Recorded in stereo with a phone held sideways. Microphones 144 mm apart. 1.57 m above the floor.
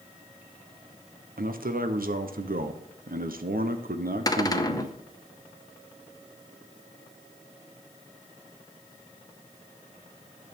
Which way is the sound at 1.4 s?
90° right.